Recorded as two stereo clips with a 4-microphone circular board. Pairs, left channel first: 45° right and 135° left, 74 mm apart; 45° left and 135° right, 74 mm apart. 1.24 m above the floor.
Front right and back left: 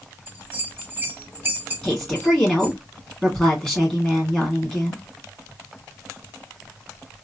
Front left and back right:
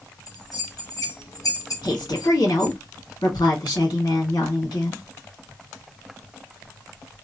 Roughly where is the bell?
Left.